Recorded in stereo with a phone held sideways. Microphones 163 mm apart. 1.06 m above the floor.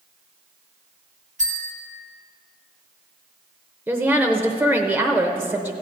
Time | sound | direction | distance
1.4 | a bell | 50° right (ahead or behind) | 2.5 m
3.9 | a woman speaking | 10° right (ahead or behind) | 0.8 m